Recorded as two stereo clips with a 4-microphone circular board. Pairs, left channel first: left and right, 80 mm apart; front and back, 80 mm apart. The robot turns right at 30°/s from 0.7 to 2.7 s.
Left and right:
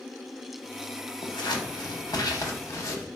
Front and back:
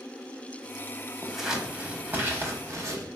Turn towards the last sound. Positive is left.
turn(degrees=135)